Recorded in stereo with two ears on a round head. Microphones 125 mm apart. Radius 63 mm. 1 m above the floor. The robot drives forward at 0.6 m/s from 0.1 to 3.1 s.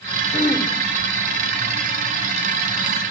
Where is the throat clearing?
35° left (ahead or behind), 1.9 m; by 0.7 s 40° left (ahead or behind), 1.7 m.